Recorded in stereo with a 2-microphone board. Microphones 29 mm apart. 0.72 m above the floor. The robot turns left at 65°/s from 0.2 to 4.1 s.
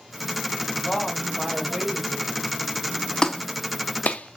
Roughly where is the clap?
Left.